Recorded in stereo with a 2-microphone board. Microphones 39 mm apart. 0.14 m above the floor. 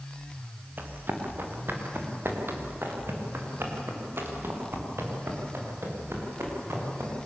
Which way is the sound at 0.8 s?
55° right (ahead or behind).